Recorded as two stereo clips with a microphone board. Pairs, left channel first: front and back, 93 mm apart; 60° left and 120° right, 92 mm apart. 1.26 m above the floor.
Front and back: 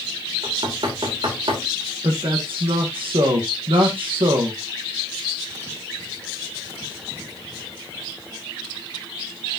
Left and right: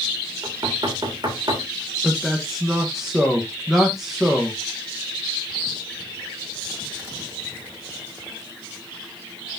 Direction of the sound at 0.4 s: 160° right.